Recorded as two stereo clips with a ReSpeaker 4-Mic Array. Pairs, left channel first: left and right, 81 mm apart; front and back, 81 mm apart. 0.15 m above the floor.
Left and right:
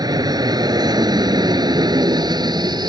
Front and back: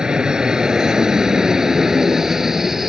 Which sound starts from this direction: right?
An aircraft, at 0.0 s.